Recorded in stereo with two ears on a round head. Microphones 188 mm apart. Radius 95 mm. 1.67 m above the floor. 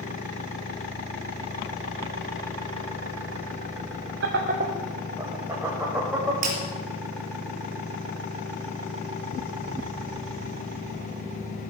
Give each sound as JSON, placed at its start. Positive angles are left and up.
{"t": 4.2, "sound": "laughter", "side_deg": -60, "distance_m": 1.0}
{"t": 6.4, "sound": "breaking glass", "side_deg": -40, "distance_m": 3.5}